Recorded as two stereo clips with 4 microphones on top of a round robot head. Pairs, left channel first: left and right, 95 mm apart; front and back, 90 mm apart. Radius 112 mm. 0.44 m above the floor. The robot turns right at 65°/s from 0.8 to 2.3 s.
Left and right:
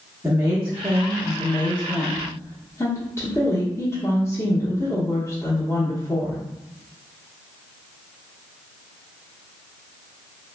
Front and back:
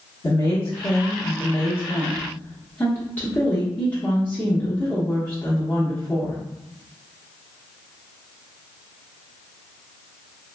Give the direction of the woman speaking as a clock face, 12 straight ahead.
1 o'clock.